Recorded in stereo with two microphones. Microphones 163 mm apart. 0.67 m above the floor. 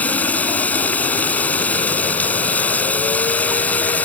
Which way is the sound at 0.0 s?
10° left (ahead or behind).